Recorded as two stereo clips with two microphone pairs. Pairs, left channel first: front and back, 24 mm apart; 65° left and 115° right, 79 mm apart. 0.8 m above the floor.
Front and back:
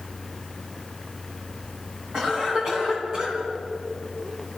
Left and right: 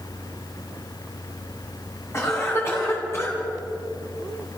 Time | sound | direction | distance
2.1 | a cough | 120° left | 9 m